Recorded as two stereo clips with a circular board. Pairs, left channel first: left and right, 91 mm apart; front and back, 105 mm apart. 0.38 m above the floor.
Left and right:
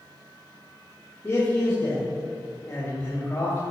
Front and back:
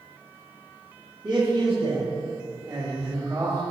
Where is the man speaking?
155° left, 3 m; by 3.6 s 130° left, 2 m.